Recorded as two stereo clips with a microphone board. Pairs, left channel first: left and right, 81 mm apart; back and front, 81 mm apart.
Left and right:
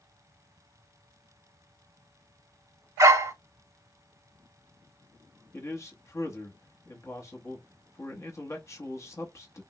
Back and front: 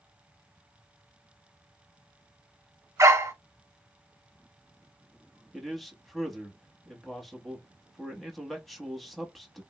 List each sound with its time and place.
3.0 s a dog barking: 45° right, 0.7 m
5.5 s a man speaking: 90° left, 0.9 m